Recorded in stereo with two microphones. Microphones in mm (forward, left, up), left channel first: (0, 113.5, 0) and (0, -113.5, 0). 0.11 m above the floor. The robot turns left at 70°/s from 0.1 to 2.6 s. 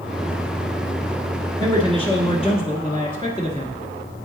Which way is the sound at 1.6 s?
20° left (ahead or behind).